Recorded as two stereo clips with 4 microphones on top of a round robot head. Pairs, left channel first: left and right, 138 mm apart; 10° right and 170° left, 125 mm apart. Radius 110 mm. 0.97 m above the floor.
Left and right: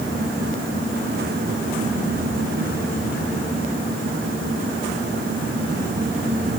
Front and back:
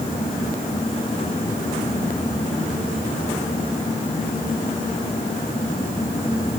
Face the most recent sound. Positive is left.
No sound to turn to.